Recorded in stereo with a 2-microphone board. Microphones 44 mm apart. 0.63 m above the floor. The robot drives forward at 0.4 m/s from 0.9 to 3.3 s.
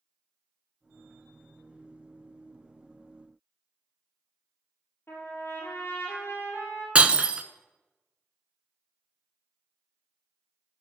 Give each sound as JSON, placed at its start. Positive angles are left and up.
{"t": 5.1, "sound": "a trumpet", "side_deg": 60, "distance_m": 4.5}
{"t": 7.0, "sound": "breaking glass", "side_deg": -25, "distance_m": 0.6}